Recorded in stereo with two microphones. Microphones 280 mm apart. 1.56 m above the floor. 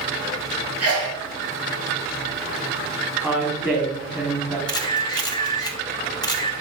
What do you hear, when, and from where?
0.8 s a sneeze: 60° right (ahead or behind), 3 m
3.2 s a woman speaking: 5° right (ahead or behind), 4 m
4.7 s a camera shutter: 15° left (ahead or behind), 1.1 m